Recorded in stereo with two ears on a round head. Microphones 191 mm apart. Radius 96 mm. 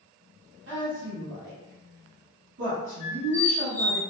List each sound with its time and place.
0.7 s a woman speaking: 55° right (ahead or behind), 1.2 m
3.0 s a squeak: 35° left (ahead or behind), 1.3 m